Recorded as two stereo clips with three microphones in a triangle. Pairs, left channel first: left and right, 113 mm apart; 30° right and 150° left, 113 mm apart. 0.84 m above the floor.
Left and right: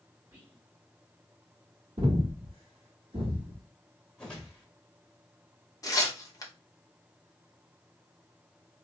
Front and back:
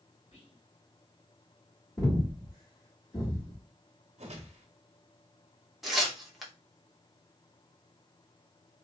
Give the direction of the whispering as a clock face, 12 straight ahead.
1 o'clock.